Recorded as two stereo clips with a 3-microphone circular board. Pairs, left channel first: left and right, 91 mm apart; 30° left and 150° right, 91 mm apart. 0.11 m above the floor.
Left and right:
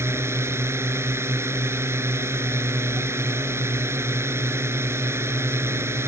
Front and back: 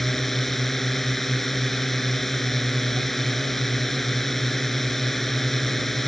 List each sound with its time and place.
0.0 s a drone: 55° right